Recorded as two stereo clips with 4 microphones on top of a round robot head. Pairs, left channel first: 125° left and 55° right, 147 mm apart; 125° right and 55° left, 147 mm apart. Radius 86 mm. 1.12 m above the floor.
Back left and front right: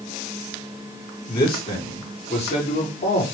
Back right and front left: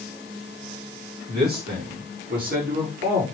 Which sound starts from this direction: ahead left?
A man speaking, at 1.3 s.